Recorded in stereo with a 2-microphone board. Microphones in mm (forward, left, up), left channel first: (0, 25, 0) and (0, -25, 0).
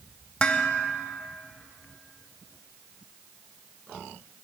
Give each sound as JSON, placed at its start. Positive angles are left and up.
{"t": 0.4, "sound": "dishes clattering", "side_deg": 20, "distance_m": 0.8}